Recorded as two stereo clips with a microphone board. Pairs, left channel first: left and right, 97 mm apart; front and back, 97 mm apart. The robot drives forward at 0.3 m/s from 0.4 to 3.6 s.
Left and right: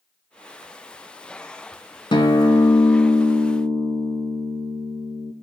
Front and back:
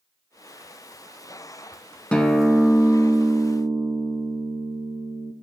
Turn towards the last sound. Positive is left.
turn(degrees=125)